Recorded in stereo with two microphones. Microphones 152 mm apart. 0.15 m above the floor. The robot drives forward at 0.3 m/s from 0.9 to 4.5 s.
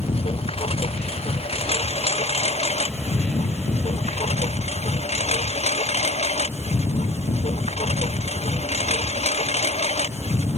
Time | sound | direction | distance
0.0 | a lawn mower | 40° left (ahead or behind) | ?